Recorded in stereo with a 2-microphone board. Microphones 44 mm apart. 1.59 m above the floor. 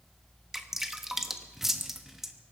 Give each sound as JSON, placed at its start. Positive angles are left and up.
{"t": 0.5, "sound": "dripping", "side_deg": -10, "distance_m": 1.0}